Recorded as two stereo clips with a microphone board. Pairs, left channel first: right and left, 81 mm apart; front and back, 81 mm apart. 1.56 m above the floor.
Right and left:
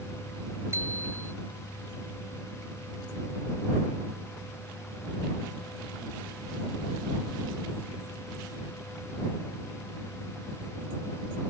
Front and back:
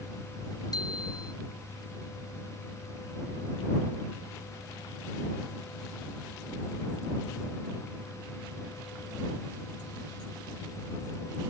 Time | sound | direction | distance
0.7 | a bicycle bell | 30° left | ?